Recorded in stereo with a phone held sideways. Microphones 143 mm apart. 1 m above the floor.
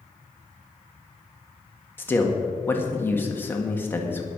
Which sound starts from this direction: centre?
A man speaking, at 2.0 s.